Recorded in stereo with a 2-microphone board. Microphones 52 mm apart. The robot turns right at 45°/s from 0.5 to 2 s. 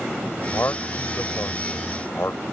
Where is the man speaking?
50° left (ahead or behind).